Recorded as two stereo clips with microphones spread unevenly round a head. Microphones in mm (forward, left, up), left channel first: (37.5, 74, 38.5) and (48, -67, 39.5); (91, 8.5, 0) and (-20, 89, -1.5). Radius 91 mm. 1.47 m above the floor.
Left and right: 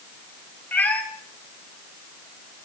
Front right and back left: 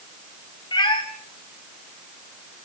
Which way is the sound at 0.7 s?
15° left.